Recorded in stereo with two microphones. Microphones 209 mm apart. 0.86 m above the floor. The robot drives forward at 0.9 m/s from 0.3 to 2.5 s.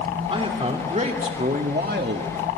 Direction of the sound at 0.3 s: 25° right (ahead or behind).